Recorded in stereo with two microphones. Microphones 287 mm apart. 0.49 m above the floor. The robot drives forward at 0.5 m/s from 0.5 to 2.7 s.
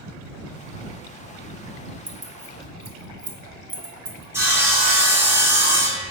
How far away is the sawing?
About 1.2 m.